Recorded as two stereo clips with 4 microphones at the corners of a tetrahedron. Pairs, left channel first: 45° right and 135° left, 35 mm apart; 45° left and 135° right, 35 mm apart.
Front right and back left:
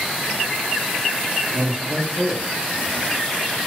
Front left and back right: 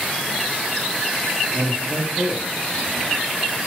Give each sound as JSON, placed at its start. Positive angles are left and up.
{"t": 1.5, "sound": "a man speaking", "azimuth_deg": -175, "distance_m": 2.5}